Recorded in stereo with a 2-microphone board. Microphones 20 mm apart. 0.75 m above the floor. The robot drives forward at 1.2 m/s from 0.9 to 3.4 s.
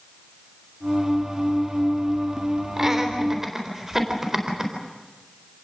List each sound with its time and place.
2.8 s laughter: 25° right (ahead or behind), 3 m; by 4.7 s 20° right (ahead or behind), 3.5 m